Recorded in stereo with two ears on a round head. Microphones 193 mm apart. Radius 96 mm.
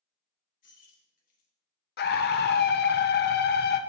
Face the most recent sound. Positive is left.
turn(degrees=50)  # may be behind; listen again after turning